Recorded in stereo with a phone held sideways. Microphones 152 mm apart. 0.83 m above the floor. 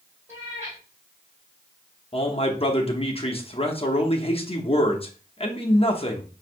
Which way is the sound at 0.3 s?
15° right (ahead or behind).